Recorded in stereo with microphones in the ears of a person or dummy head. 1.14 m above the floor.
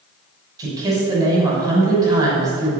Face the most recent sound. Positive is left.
turn(degrees=-25)  # may be behind; listen again after turning